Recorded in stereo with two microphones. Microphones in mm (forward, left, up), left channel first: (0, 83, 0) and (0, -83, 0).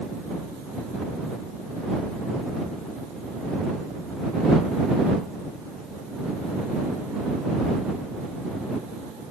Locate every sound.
Only background noise.